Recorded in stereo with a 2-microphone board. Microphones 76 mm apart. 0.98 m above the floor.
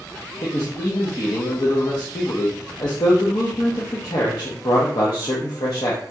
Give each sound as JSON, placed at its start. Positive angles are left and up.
{"t": 0.4, "sound": "a man speaking", "side_deg": 60, "distance_m": 0.7}